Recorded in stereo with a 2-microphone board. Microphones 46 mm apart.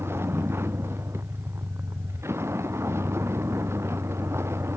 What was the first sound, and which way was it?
A vehicle, 70° right (ahead or behind).